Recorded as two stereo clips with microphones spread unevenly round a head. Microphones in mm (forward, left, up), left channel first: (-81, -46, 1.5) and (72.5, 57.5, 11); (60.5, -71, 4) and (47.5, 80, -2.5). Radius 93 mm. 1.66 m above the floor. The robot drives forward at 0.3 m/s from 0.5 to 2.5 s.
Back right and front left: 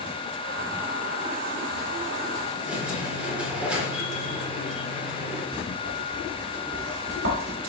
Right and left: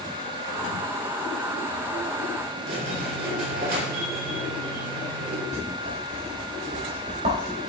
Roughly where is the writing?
Ahead left.